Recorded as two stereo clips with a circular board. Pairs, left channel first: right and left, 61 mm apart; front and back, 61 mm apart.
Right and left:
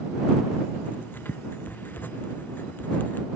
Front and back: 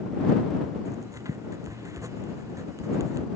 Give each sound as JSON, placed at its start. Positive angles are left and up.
{"t": 0.8, "sound": "writing", "azimuth_deg": -150}